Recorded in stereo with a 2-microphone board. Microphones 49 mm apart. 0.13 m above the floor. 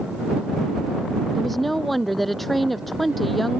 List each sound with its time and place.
1.4 s a woman speaking: 5° left (ahead or behind)